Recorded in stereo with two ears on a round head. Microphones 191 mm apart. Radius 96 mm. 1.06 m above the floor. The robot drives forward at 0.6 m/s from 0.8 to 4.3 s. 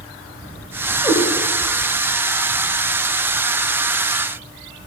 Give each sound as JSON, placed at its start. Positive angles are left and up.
{"t": 1.0, "sound": "a cat meowing", "side_deg": 10, "distance_m": 1.3}